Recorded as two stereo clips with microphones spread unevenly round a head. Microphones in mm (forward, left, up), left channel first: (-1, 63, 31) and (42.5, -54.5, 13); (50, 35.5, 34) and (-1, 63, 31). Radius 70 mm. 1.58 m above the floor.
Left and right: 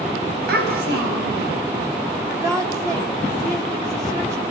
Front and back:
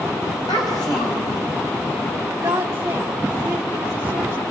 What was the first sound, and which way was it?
A child speaking, 75° right.